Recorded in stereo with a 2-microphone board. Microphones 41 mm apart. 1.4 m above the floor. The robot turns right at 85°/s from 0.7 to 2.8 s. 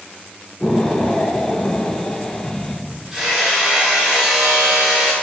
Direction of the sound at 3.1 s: 10° right (ahead or behind).